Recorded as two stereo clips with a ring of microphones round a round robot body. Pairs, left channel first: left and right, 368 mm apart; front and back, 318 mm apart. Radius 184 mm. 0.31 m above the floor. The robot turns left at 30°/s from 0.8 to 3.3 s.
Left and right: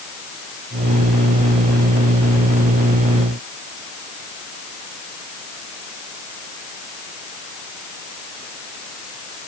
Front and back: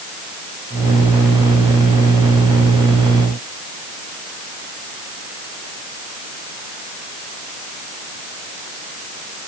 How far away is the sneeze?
I don't hear a sneeze.